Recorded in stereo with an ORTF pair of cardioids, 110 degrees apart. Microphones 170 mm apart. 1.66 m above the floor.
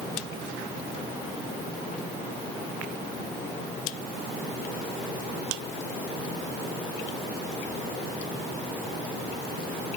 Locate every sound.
Only background noise.